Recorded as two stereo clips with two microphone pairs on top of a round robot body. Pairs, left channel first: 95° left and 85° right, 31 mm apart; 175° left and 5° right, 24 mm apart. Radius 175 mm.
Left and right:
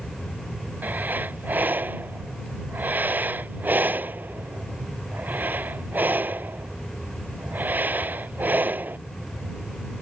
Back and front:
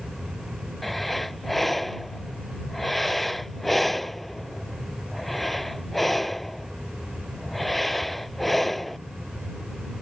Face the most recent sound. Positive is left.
turn(degrees=-105)